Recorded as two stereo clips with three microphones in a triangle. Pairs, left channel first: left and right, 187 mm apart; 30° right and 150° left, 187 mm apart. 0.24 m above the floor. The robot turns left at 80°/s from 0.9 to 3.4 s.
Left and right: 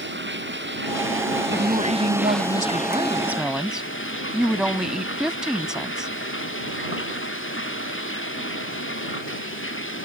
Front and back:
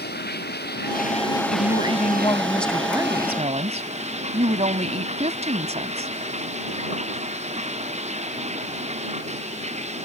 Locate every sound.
0.0 s running water: 65° right; by 10.1 s 95° left
1.5 s a woman speaking: 25° right; by 6.1 s 175° right